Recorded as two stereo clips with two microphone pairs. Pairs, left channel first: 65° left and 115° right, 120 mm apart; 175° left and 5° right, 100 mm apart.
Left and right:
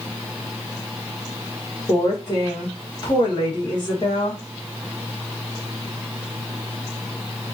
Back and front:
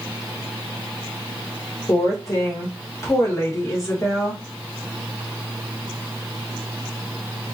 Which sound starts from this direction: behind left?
A woman speaking, at 1.9 s.